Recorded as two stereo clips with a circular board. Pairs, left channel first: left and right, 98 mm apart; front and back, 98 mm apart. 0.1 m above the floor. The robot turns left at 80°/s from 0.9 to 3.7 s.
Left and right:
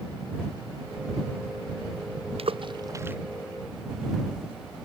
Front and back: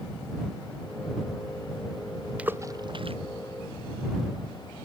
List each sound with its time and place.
2.4 s a splash: 100° right; by 3.2 s 165° right